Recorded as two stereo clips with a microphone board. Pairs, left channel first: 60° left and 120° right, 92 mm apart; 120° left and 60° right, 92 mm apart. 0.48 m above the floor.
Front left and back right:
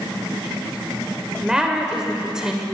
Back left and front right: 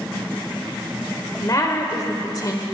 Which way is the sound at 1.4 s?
160° left.